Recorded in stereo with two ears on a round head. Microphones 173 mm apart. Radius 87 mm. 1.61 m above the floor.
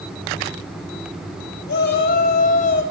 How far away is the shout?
About 4.5 m.